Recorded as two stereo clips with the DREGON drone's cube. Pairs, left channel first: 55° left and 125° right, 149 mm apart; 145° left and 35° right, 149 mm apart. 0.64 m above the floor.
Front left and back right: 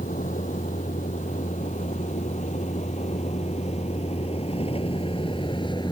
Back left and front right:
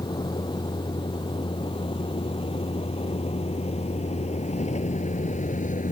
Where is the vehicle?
85° left; by 5.9 s 115° left.